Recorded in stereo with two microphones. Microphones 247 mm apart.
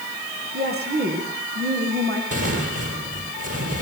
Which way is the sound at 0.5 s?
40° right (ahead or behind).